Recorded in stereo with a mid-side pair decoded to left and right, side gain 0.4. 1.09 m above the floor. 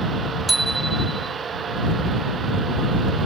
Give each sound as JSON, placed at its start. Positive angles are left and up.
{"t": 0.5, "sound": "a bicycle bell", "azimuth_deg": -20}